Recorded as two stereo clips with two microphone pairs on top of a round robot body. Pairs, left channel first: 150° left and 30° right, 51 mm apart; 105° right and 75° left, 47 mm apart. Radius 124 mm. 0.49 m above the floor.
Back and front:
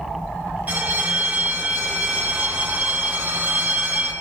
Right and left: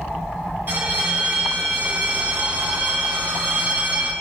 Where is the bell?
25° left, 1.1 m.